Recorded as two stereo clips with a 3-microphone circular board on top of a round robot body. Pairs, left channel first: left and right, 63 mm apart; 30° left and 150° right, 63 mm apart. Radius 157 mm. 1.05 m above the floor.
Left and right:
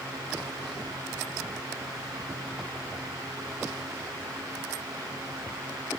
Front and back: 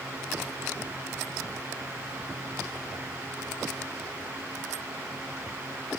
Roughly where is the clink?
No clink in this recording.